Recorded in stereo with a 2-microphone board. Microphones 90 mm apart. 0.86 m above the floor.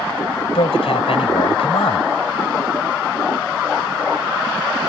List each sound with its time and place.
0.6 s a man speaking: 85° left